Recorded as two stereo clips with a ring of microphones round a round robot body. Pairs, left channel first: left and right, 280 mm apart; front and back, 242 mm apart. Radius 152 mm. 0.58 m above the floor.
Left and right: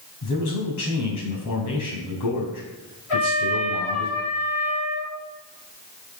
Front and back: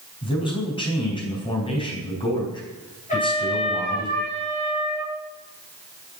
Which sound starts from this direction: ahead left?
A trumpet, at 3.1 s.